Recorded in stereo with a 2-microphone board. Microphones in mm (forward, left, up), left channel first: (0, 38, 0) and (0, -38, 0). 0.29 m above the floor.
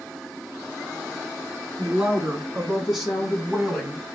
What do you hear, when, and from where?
1.8 s a woman speaking: 10° right (ahead or behind), 3.5 m; by 4.2 s 5° left (ahead or behind), 2 m